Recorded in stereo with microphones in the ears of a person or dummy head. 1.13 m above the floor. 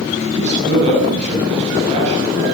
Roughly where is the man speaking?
Right.